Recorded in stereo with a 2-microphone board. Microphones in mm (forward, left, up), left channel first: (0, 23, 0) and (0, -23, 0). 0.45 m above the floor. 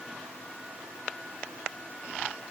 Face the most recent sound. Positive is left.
No sound to turn to.